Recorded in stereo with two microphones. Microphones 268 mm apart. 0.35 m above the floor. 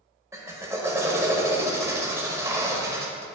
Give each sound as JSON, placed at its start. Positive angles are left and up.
{"t": 0.3, "sound": "a drill", "side_deg": -10, "distance_m": 0.7}